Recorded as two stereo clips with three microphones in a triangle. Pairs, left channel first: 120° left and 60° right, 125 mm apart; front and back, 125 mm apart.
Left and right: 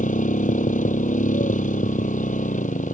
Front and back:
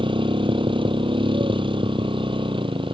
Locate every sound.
0.0 s a motorcycle: 130° left